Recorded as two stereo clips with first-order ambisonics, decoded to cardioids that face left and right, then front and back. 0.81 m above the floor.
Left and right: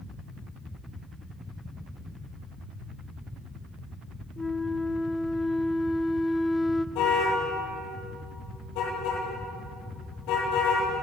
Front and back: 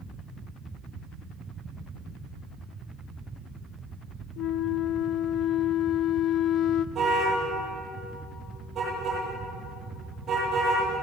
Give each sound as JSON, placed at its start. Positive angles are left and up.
{"t": 4.4, "sound": "a flute", "azimuth_deg": 15, "distance_m": 0.6}
{"t": 7.0, "sound": "a car horn", "azimuth_deg": 115, "distance_m": 9.5}